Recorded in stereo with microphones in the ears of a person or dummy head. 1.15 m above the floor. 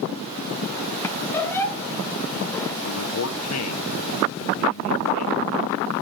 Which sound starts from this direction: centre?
A squeak, at 1.0 s.